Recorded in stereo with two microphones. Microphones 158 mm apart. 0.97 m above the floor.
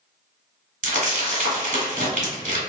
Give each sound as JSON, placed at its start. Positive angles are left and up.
{"t": 0.8, "sound": "crumpling", "side_deg": -65, "distance_m": 1.7}